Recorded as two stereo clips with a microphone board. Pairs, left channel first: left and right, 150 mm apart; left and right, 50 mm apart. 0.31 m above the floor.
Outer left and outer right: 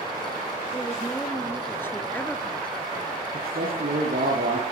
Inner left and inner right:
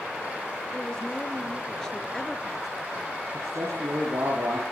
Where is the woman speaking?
20° left (ahead or behind), 5.5 m; by 3.2 s centre (ahead or behind), 3 m.